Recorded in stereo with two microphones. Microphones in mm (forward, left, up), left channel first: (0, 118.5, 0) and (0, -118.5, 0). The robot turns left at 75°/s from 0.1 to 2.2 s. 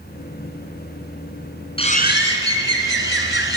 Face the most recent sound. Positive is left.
turn(degrees=125)